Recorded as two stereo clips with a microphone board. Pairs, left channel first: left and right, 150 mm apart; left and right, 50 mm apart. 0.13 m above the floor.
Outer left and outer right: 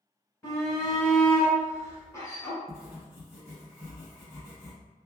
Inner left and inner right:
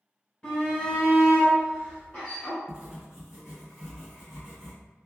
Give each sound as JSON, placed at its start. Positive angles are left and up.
{"t": 0.4, "sound": "a shout", "side_deg": 15, "distance_m": 1.4}
{"t": 2.7, "sound": "writing", "side_deg": -15, "distance_m": 1.8}